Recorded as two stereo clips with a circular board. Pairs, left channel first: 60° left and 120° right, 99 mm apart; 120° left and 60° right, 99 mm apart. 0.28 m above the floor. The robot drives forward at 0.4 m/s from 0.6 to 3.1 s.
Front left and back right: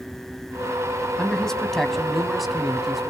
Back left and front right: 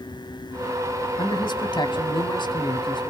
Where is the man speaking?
145° left, 2 m; by 3.1 s 155° left, 3 m.